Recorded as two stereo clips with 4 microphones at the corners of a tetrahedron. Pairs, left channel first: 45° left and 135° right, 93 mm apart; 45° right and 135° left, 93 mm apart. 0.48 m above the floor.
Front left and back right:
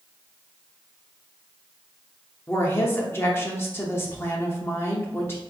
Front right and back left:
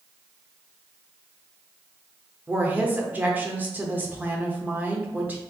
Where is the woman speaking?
85° left, 0.8 m.